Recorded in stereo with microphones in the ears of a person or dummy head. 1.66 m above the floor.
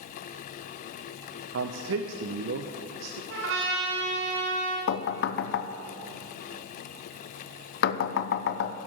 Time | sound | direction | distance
1.5 | a man speaking | 80° right | 0.7 m
3.3 | a trumpet | 65° right (ahead or behind) | 3 m
4.9 | knocking | 65° left (ahead or behind) | 0.6 m